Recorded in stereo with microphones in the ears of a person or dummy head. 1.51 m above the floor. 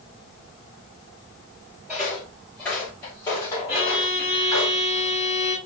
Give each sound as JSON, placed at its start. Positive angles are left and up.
{"t": 1.9, "sound": "footsteps", "side_deg": 0, "distance_m": 2.0}
{"t": 3.7, "sound": "a violin", "side_deg": -10, "distance_m": 1.2}